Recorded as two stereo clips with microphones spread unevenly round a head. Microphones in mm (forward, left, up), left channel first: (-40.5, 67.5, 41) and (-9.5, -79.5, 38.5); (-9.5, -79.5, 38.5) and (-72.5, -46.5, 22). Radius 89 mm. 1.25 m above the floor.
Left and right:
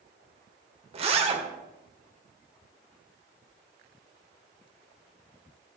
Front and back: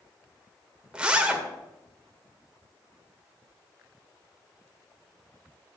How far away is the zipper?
About 1.9 m.